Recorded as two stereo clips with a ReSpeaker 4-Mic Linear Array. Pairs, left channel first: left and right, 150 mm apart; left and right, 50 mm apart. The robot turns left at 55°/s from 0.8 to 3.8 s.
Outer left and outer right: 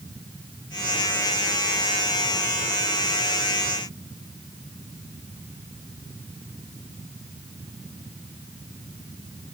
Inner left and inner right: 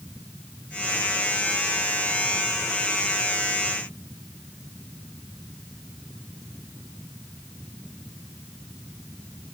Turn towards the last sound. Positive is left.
No sound to turn to.